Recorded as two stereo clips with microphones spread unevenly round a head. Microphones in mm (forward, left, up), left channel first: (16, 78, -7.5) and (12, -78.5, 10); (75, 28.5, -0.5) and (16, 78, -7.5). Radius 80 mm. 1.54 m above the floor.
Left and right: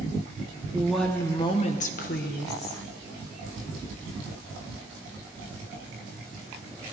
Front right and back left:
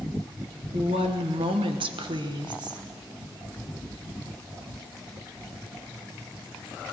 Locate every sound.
0.7 s a woman speaking: 170° right, 1.0 m; by 2.8 s 115° left, 1.9 m